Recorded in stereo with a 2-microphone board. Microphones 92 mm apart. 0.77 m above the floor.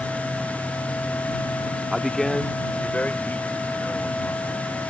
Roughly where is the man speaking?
Centre.